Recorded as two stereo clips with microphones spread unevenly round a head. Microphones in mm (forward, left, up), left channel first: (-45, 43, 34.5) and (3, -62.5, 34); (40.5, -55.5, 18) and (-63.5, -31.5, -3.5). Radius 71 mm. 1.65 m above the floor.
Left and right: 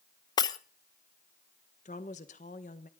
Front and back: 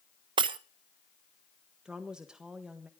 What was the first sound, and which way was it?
Breaking glass, 140° left.